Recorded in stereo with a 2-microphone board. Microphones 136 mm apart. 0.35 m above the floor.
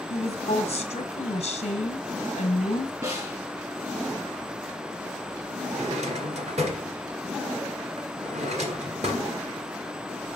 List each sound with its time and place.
0.1 s a woman speaking: 45° left (ahead or behind), 1.3 m
3.0 s a snare drum: 25° right (ahead or behind), 3.5 m
5.7 s a drawer: 60° right (ahead or behind), 1.7 m